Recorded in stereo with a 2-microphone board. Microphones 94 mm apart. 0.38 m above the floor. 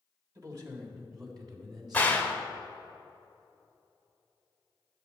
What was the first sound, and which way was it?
A man speaking, 40° right (ahead or behind).